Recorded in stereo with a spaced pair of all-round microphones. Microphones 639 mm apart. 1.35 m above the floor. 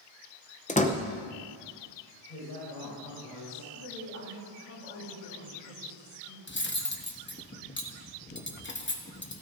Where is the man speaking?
75° left (ahead or behind), 4.5 m.